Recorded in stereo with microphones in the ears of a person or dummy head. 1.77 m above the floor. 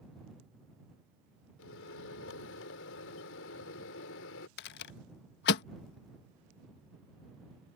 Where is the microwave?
85° left.